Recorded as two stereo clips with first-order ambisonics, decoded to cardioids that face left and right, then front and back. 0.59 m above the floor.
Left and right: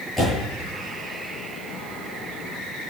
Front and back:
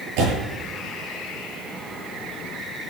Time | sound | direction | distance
0.2 | a door slam | 170° left | 7.5 m